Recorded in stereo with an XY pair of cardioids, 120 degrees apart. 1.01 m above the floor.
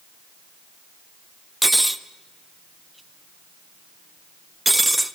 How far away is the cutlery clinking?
About 0.7 m.